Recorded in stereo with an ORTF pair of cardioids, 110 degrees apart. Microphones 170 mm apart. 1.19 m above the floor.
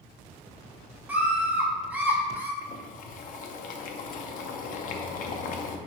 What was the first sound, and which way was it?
A scream, 5° right.